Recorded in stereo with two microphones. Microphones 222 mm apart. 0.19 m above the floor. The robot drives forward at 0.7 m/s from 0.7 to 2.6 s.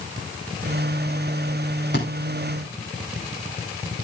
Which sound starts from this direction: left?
A thud, at 1.9 s.